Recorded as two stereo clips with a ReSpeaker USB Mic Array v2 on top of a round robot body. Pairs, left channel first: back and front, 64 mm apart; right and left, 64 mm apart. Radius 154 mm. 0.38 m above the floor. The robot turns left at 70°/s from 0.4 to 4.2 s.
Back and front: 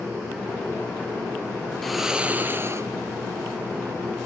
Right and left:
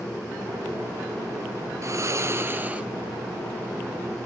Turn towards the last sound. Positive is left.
turn(degrees=-70)